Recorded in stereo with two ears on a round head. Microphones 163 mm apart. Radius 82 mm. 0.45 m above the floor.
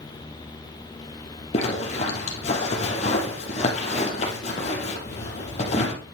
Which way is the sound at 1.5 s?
40° left (ahead or behind).